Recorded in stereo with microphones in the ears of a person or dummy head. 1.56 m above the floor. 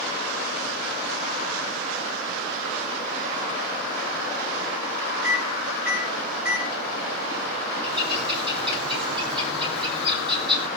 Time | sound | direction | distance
5.2 | a microwave | 10° right (ahead or behind) | 9.5 m
7.8 | a bird | 30° right (ahead or behind) | 9 m